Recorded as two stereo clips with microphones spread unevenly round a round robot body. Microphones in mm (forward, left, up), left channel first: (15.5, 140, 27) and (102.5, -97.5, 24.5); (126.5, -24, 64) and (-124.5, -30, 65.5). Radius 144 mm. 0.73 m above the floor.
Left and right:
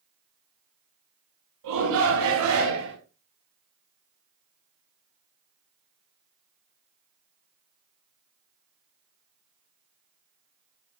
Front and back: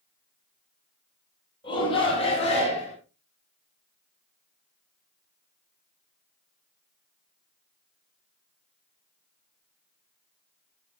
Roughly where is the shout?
Right.